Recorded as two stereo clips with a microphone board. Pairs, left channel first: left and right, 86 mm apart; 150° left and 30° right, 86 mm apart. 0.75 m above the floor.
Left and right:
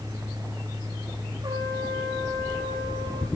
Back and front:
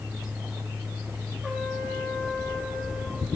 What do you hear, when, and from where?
1.4 s a trumpet: 115° right, 2 m